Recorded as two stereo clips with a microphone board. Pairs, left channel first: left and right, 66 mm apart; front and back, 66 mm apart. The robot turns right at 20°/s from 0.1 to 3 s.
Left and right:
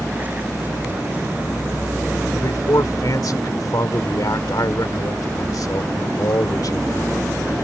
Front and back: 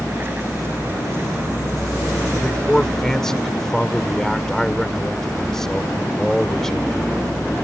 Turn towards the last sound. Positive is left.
turn(degrees=80)